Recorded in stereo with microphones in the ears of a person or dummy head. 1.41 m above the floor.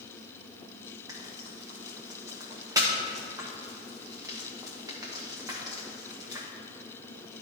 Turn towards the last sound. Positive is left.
turn(degrees=-10)  # may be behind; listen again after turning